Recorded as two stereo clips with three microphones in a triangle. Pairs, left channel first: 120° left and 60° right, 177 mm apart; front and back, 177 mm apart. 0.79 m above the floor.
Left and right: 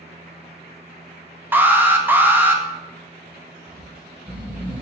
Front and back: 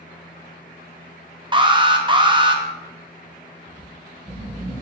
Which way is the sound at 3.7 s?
120° right.